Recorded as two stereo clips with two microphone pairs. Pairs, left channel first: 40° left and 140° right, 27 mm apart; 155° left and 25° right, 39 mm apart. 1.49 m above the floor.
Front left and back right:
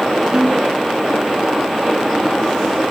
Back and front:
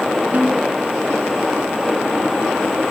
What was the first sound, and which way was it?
A snare drum, 75° right.